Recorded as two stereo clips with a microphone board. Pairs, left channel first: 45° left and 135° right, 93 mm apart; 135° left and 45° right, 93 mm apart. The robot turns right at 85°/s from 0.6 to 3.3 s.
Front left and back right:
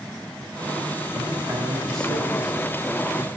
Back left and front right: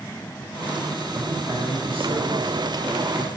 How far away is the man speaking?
About 4 m.